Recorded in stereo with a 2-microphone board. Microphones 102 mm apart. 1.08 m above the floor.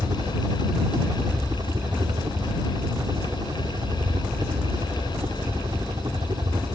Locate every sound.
0.0 s a helicopter: 45° right (ahead or behind)